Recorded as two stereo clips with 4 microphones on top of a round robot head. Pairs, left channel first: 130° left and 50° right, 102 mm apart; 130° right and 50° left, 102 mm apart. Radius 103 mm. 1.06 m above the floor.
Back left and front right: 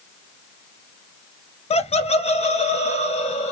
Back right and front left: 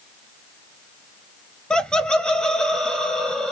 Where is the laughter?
150° left, 0.6 m; by 3.5 s 145° left, 1.6 m.